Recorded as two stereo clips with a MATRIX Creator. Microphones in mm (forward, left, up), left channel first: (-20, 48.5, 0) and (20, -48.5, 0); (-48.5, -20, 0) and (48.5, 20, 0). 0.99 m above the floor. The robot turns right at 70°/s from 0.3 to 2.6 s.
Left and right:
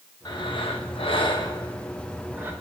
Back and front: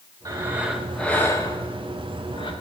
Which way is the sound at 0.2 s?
70° left.